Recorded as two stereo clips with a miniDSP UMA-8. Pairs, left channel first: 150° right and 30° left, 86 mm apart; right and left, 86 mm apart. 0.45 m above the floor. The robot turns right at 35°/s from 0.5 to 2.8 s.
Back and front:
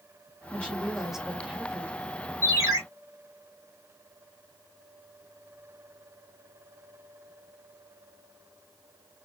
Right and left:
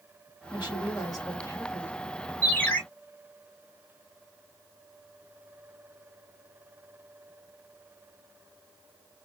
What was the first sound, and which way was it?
A woman speaking, 80° right.